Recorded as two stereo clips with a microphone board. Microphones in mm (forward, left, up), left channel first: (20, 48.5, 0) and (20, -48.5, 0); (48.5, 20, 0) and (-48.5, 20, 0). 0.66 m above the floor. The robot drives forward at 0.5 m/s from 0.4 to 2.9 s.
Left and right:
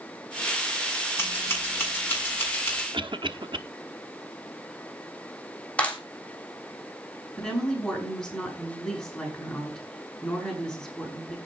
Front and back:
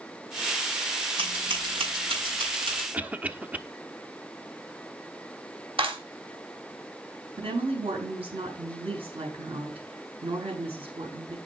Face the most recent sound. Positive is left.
turn(degrees=175)